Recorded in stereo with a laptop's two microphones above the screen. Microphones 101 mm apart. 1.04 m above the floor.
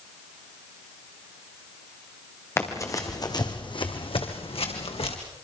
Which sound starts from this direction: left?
Running footsteps, at 2.6 s.